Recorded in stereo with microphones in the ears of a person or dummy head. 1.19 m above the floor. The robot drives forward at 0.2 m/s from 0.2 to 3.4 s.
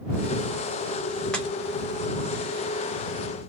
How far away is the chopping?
About 1.0 m.